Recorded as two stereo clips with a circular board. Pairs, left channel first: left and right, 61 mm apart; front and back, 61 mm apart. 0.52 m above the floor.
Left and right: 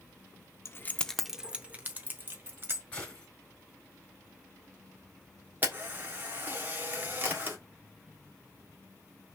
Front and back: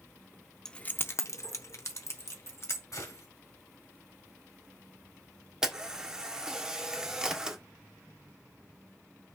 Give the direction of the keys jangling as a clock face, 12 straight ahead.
10 o'clock.